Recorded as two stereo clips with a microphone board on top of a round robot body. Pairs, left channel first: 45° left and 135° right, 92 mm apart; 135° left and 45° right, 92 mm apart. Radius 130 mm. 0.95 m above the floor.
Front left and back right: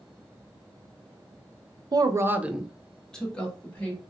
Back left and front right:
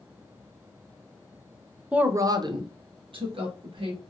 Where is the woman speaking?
120° right, 0.6 m; by 4.0 s 25° right, 1.5 m.